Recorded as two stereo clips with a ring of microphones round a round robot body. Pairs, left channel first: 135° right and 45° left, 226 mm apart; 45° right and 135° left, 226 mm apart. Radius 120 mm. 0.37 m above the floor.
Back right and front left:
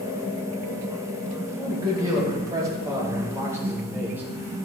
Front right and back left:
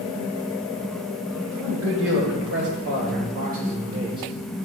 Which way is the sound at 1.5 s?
120° left.